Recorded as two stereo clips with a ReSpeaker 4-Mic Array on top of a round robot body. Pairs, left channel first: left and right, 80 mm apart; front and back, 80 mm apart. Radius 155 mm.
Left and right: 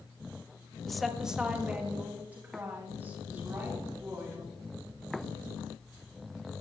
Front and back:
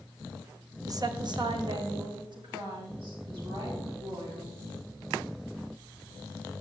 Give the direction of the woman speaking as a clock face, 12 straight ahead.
6 o'clock.